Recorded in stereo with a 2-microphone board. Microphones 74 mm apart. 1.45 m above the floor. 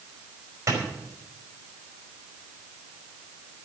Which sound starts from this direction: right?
A clap, at 0.7 s.